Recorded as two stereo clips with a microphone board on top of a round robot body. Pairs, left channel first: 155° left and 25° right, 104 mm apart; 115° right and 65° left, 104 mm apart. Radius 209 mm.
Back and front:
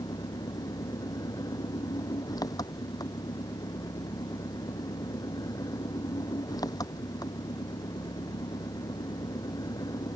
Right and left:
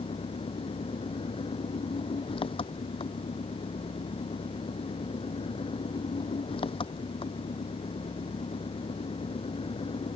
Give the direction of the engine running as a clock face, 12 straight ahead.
5 o'clock.